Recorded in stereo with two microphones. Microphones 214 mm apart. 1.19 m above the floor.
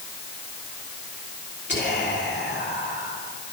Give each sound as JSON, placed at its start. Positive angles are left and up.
{"t": 1.7, "sound": "whispering", "side_deg": 55, "distance_m": 2.5}